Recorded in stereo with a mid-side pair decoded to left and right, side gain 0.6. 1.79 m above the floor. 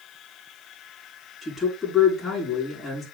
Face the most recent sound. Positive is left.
turn(degrees=20)